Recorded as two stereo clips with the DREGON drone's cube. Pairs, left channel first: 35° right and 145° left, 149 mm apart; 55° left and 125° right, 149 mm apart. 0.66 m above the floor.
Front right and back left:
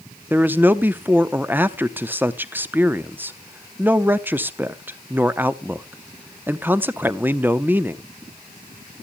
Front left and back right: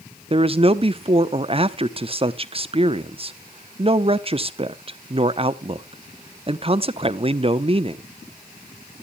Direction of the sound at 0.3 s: 145° right.